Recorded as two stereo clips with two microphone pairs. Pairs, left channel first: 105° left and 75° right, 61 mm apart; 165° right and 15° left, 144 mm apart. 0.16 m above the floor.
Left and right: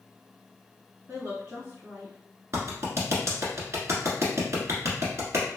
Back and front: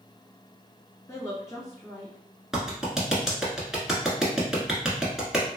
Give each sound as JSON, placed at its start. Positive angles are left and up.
{"t": 1.1, "sound": "a woman speaking", "azimuth_deg": -105, "distance_m": 1.7}
{"t": 2.5, "sound": "a clap", "azimuth_deg": -75, "distance_m": 1.3}